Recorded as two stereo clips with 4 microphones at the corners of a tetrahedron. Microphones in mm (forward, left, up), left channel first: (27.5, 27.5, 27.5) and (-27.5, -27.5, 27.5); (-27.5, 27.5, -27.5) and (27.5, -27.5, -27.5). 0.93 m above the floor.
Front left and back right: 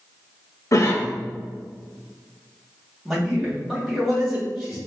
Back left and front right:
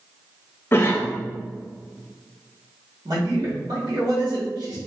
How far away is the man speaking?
About 1.9 m.